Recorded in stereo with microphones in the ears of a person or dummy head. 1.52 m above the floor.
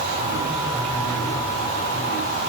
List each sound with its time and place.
Only background noise.